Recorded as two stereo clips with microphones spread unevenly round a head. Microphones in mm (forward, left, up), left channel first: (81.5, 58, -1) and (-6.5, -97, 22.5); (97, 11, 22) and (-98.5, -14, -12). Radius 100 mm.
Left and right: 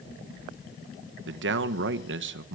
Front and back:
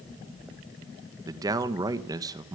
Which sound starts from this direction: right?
A man speaking, at 1.3 s.